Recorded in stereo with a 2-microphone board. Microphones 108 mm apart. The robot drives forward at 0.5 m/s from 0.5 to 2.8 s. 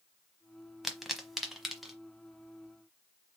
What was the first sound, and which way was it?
A pop, centre (ahead or behind).